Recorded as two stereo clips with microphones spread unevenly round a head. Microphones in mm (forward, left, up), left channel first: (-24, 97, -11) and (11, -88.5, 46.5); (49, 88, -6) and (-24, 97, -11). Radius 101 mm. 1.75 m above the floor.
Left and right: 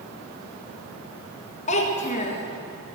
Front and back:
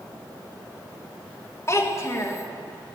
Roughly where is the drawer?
I don't hear a drawer.